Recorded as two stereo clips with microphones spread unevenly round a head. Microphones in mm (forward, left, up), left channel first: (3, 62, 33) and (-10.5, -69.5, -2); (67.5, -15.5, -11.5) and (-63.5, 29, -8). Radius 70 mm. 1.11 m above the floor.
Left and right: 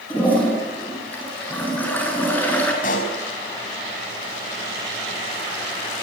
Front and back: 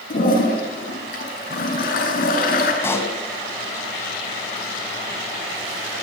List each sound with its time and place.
0.1 s a toilet flushing: 10° left, 8 m
2.8 s a pop: 55° left, 5 m